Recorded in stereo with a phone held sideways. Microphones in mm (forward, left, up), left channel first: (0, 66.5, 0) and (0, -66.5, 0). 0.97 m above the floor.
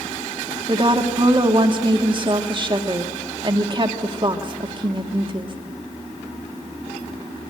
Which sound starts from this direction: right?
A woman speaking, at 0.7 s.